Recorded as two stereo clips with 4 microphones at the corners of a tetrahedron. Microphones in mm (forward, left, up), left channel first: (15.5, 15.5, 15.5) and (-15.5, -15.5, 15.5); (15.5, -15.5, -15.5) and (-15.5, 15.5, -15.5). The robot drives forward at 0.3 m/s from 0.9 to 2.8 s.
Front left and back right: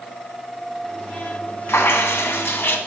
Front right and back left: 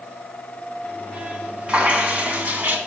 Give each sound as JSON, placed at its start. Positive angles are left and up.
{"t": 1.7, "sound": "dripping", "azimuth_deg": 70, "distance_m": 1.3}